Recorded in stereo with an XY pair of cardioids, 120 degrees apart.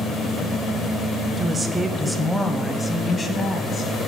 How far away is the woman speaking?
About 0.8 m.